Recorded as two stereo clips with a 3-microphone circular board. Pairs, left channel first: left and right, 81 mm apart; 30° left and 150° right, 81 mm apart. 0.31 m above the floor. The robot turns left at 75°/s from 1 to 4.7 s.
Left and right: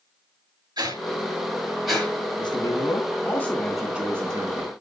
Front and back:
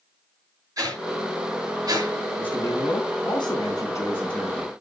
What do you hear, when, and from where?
0.8 s a whoosh: 110° right, 6 m; by 2.2 s 160° left, 6 m
2.4 s a man speaking: 105° left, 3.5 m; by 4.7 s 70° right, 3.5 m